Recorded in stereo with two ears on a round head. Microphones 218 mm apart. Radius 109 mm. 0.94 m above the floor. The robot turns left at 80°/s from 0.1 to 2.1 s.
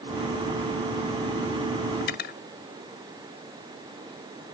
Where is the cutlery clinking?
50° left (ahead or behind); by 2.4 s 40° left (ahead or behind).